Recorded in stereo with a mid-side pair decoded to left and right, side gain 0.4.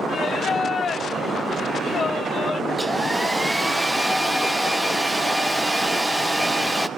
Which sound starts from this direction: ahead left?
Singing, at 0.1 s.